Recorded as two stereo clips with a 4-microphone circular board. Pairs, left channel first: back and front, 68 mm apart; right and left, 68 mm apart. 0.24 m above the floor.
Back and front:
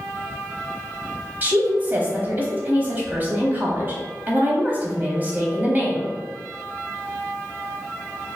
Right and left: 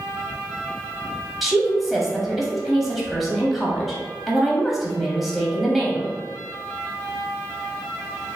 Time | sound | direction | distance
1.4 | a woman speaking | 5° left | 1.2 m